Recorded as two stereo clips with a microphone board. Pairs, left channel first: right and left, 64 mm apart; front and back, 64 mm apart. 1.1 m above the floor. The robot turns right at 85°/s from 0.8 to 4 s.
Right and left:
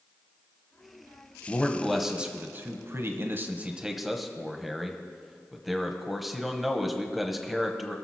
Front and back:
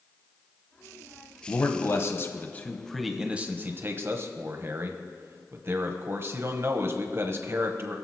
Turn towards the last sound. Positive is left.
turn(degrees=175)